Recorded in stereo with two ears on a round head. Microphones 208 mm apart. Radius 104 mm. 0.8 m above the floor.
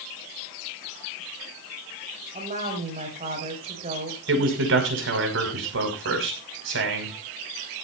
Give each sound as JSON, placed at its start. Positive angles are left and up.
{"t": 2.3, "sound": "a woman speaking", "side_deg": -30, "distance_m": 6.0}
{"t": 4.3, "sound": "a man speaking", "side_deg": -60, "distance_m": 6.0}